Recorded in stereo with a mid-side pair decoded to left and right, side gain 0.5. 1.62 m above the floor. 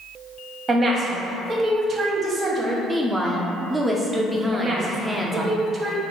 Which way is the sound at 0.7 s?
40° right.